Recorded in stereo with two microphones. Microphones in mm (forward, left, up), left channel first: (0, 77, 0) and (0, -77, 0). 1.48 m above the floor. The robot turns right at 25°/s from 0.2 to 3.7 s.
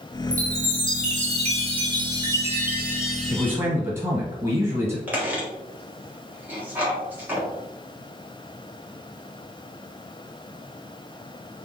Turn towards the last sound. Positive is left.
turn(degrees=-10)  # may be behind; listen again after turning